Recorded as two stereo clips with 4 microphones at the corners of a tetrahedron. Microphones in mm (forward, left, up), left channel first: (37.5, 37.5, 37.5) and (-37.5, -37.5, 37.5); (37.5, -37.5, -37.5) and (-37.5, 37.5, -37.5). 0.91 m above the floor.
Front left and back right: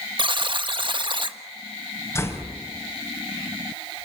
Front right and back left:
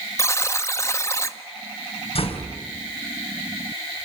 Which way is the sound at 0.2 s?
105° right.